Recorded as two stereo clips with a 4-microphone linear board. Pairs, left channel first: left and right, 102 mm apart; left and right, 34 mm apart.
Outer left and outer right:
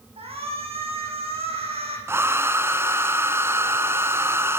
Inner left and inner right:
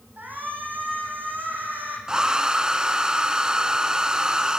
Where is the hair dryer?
25° right (ahead or behind), 1.6 m.